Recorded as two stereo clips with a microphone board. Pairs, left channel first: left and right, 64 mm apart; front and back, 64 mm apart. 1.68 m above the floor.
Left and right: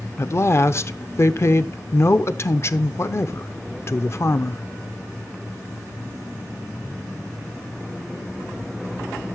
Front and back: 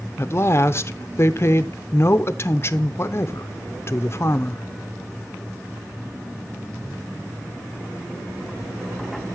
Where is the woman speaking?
45° left, 0.8 m.